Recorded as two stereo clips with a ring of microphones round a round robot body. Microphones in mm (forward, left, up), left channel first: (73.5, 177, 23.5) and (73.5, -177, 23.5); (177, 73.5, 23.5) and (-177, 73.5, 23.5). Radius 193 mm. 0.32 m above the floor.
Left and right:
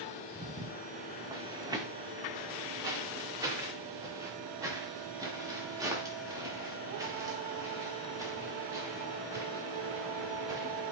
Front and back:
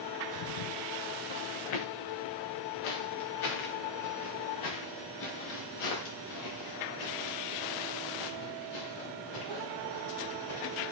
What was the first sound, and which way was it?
Footsteps, 10° right.